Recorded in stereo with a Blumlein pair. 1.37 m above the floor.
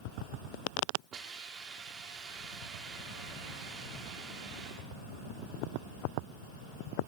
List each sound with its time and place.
1.1 s a hiss: 25° right, 2 m